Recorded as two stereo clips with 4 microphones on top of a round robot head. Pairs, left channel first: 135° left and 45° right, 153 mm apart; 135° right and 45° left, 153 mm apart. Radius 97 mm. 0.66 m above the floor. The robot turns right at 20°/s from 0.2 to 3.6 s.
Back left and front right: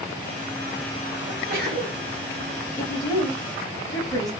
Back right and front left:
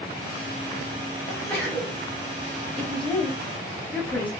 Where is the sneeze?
65° right, 1.5 m; by 2.0 s 50° right, 1.5 m.